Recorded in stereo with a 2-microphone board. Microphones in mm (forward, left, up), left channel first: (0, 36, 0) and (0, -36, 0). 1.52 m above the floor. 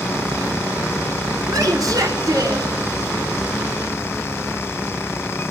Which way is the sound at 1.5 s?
70° right (ahead or behind).